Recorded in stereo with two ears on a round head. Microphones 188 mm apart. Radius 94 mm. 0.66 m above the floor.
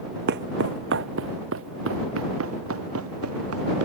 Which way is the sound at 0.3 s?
50° right (ahead or behind).